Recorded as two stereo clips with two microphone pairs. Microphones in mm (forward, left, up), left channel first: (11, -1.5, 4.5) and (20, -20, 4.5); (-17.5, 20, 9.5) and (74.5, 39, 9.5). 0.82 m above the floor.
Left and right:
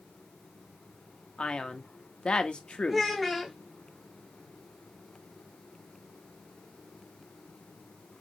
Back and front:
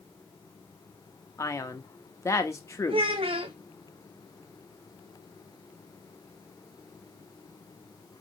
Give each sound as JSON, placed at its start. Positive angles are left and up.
{"t": 1.4, "sound": "a man speaking", "azimuth_deg": 135, "distance_m": 0.8}
{"t": 2.9, "sound": "a child speaking", "azimuth_deg": 30, "distance_m": 0.5}